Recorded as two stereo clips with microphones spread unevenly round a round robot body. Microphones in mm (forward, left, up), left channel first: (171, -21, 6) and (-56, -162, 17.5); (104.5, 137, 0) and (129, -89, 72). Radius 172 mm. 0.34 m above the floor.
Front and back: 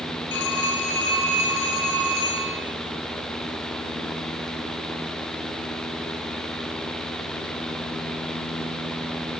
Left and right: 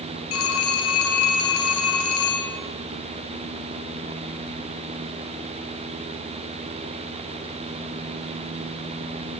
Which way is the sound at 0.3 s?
90° left.